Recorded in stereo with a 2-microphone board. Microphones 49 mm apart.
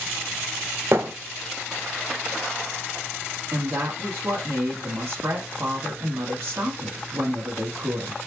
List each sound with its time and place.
0.9 s a thud: 65° right (ahead or behind), 1.3 m
3.5 s a woman speaking: 50° right (ahead or behind), 1.7 m